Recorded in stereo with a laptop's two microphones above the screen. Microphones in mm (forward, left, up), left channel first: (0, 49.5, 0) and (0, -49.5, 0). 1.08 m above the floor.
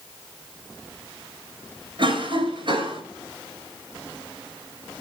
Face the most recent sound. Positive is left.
turn(degrees=-55)  # may be behind; listen again after turning